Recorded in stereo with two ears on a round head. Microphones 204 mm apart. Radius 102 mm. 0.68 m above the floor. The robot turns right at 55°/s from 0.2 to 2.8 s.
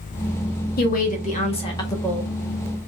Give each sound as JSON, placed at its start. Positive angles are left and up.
{"t": 0.8, "sound": "a woman speaking", "azimuth_deg": 95, "distance_m": 1.3}